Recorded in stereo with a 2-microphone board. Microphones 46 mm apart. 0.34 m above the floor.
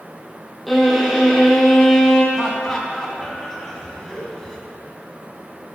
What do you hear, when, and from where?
0.7 s a violin: centre (ahead or behind), 2.5 m
2.3 s laughter: 10° left (ahead or behind), 3 m